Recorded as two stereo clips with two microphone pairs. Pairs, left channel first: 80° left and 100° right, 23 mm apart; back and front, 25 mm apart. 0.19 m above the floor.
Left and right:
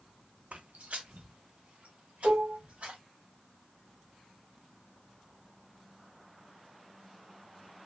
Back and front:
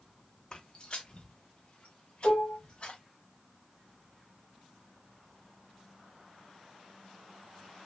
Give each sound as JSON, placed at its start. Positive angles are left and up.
{"t": 0.5, "sound": "footsteps", "azimuth_deg": -125, "distance_m": 0.5}
{"t": 2.2, "sound": "dishes clattering", "azimuth_deg": -120, "distance_m": 3.0}